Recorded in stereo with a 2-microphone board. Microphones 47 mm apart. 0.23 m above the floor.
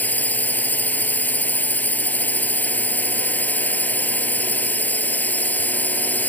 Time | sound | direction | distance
0.0 | a drone | 35° left (ahead or behind) | ?